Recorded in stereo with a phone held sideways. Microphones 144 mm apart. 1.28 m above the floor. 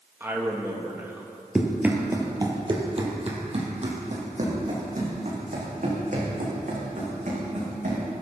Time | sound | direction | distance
0.2 | a man speaking | 15° right (ahead or behind) | 1.3 m
1.6 | running footsteps | 5° right (ahead or behind) | 1.8 m